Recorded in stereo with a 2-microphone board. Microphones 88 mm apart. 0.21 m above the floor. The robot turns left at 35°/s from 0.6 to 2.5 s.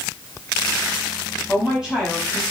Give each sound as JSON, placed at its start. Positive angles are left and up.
{"t": 1.5, "sound": "a woman speaking", "side_deg": -15, "distance_m": 1.0}